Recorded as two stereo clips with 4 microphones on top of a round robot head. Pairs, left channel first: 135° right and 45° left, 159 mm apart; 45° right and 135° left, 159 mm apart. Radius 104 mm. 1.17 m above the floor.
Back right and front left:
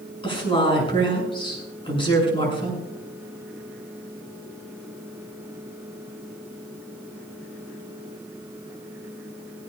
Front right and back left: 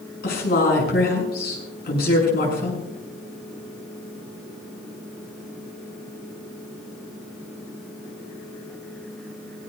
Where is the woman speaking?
75° right, 7 m.